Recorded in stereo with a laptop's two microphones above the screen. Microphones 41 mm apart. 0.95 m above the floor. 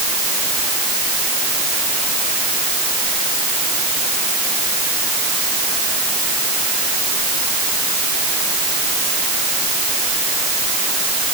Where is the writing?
I don't hear writing.